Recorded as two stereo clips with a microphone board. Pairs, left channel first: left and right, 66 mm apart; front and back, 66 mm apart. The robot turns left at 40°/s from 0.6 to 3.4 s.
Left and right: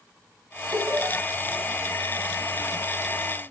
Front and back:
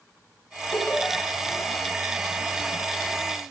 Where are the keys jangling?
I don't hear keys jangling.